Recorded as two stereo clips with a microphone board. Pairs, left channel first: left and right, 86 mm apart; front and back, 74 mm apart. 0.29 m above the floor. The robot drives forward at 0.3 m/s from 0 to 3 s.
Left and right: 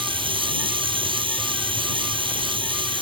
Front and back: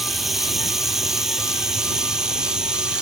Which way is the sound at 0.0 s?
90° right.